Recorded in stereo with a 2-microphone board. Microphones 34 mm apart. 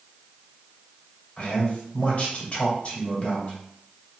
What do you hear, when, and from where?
1.4 s a man speaking: 40° left (ahead or behind), 1.6 m